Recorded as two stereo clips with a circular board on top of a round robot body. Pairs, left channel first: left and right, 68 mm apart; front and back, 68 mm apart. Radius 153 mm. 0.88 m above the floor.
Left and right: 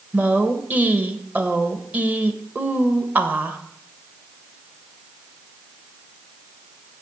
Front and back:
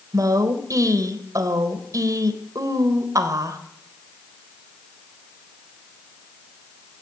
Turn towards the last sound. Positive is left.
turn(degrees=-155)